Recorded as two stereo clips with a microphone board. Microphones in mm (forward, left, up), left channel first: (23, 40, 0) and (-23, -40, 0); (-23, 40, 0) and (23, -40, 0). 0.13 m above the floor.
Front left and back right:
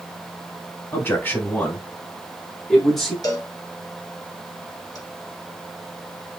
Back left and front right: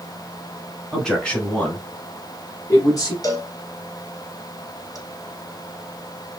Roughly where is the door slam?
I don't hear a door slam.